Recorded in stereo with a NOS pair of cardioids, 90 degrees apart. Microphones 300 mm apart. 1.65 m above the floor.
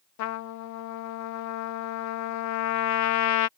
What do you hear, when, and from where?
0.2 s a trumpet: 65° left